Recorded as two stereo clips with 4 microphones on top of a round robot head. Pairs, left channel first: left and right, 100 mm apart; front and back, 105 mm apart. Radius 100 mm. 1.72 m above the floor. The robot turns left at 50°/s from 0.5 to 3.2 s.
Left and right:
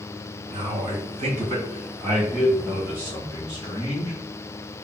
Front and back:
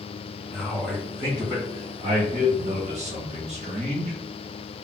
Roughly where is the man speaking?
Right.